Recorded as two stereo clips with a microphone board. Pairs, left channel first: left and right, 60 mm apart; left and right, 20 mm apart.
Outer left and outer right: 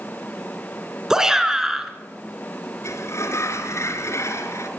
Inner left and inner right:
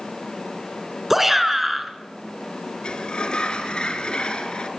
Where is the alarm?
I don't hear an alarm.